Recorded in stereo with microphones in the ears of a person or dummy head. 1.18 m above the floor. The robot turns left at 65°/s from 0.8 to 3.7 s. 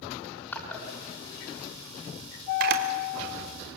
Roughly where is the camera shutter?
Right.